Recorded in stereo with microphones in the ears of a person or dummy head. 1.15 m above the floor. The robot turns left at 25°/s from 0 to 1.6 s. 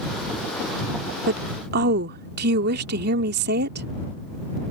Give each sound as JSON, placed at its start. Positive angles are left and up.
{"t": 1.3, "sound": "a woman speaking", "side_deg": -60}